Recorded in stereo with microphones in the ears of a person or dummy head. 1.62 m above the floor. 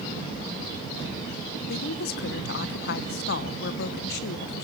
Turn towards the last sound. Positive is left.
turn(degrees=55)  # may be behind; listen again after turning